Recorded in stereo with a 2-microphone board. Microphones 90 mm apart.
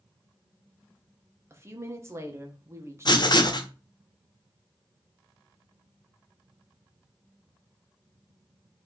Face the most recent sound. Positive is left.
turn(degrees=50)  # may be behind; listen again after turning